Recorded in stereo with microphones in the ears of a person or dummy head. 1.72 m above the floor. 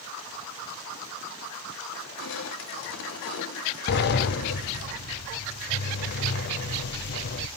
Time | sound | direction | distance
1.9 | crushing | 70° left (ahead or behind) | 1.4 m
3.9 | a sliding door | 55° left (ahead or behind) | 0.8 m